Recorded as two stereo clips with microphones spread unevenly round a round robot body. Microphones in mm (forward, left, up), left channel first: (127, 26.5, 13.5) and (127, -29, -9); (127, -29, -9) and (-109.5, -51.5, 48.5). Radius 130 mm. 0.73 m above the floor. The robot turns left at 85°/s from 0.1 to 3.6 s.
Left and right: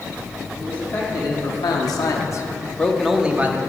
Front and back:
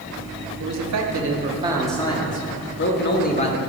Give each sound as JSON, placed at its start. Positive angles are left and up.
{"t": 0.6, "sound": "a man speaking", "azimuth_deg": -165, "distance_m": 1.6}